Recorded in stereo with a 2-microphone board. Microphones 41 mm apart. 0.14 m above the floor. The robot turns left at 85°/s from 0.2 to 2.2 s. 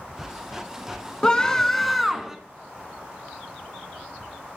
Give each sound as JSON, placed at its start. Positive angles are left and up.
{"t": 1.2, "sound": "a scream", "side_deg": 20, "distance_m": 1.3}